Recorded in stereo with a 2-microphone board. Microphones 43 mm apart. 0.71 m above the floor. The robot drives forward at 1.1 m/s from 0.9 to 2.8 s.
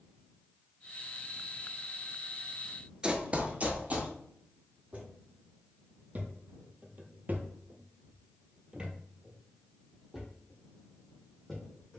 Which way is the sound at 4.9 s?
35° right (ahead or behind).